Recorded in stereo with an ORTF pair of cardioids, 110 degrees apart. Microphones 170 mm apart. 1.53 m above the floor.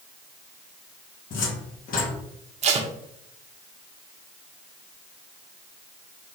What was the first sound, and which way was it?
A cupboard door, 55° left.